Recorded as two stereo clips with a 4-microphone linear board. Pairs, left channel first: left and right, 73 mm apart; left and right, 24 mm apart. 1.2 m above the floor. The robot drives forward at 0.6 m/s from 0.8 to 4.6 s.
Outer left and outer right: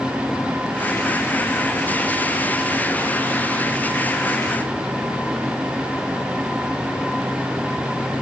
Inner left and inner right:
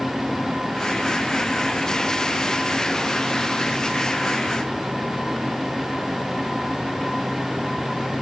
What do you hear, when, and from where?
Only background noise.